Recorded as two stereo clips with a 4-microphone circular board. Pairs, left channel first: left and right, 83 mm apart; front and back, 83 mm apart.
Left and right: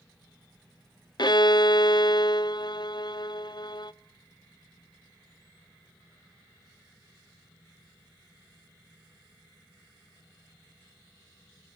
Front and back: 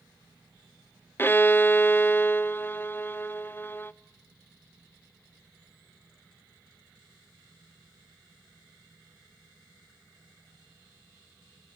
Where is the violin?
65° left, 0.5 m.